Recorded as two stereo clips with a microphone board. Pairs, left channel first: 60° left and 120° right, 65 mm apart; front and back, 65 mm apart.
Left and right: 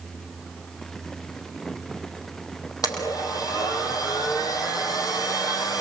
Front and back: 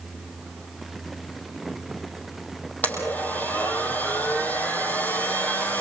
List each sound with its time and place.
2.8 s a blender: 60° left, 4.5 m